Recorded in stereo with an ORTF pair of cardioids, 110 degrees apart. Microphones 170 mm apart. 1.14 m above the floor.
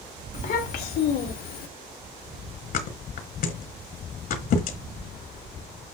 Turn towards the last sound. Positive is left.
turn(degrees=60)